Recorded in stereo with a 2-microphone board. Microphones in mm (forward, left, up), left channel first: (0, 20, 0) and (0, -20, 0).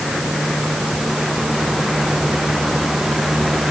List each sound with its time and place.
Only background noise.